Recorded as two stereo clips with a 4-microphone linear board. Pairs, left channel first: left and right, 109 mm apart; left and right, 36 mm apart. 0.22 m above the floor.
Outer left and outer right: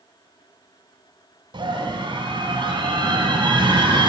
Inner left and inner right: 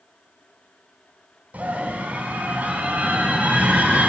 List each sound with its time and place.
1.5 s a scream: 45° right (ahead or behind), 2 m